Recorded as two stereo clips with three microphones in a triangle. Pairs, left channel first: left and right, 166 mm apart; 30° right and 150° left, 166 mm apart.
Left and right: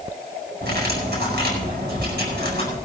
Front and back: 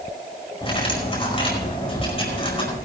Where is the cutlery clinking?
85° right, 5 m.